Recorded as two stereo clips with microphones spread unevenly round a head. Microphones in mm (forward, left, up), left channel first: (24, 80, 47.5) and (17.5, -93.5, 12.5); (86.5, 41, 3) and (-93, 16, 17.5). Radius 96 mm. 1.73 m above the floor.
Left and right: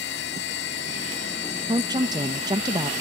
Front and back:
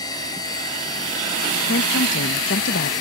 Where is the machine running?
80° left.